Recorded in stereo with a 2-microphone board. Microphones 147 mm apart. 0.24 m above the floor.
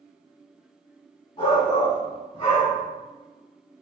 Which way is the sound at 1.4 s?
50° left (ahead or behind).